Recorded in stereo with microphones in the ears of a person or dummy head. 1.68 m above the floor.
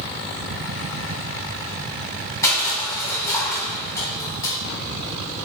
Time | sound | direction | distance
2.4 | crushing | 20° left (ahead or behind) | 2 m